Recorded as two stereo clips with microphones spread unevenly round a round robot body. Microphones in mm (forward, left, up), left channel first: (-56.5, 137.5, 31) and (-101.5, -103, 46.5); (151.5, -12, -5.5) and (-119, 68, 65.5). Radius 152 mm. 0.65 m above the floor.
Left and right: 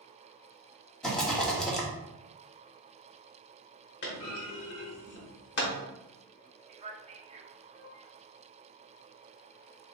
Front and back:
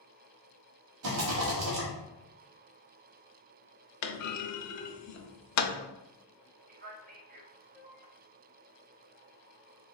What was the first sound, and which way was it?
A rattle, 160° left.